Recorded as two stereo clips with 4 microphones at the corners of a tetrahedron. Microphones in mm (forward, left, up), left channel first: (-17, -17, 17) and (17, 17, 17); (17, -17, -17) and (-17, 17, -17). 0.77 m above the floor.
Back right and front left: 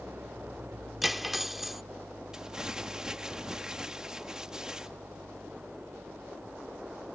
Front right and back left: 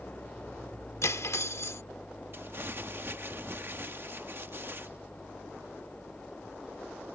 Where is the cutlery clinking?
40° right.